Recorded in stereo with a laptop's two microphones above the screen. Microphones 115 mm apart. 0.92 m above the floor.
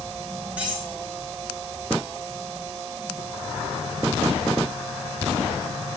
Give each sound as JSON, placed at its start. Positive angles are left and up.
{"t": 0.6, "sound": "cutlery clinking", "side_deg": -15, "distance_m": 6.5}